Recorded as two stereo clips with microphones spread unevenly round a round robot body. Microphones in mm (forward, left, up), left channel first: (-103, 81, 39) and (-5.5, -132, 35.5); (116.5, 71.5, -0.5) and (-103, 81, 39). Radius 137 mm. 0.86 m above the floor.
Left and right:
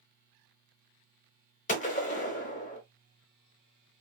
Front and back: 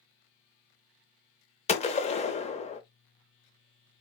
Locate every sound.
1.7 s a gunshot: 60° left, 0.7 m